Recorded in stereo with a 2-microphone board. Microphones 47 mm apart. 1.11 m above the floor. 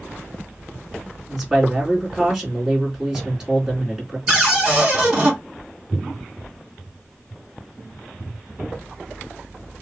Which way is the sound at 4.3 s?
20° right (ahead or behind).